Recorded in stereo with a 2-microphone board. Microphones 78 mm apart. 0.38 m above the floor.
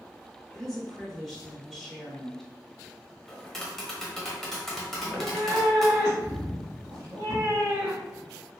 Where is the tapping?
5° left (ahead or behind), 1.0 m.